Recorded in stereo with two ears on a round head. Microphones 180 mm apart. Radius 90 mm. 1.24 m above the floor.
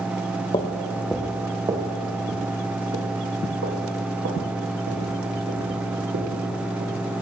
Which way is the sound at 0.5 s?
20° left (ahead or behind).